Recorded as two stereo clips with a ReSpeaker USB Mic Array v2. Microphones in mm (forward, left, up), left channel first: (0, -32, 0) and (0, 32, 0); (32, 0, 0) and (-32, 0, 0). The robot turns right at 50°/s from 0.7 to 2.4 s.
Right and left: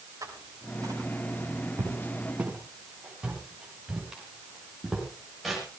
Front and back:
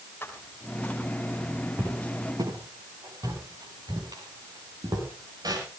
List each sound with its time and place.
0.2 s footsteps: 60° left, 5 m; by 5.6 s straight behind, 9.5 m